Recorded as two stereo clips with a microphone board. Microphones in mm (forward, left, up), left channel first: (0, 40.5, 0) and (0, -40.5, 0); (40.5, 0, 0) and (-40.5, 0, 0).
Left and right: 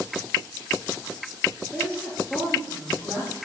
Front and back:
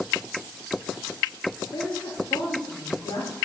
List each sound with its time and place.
1.7 s a woman speaking: 25° left, 9 m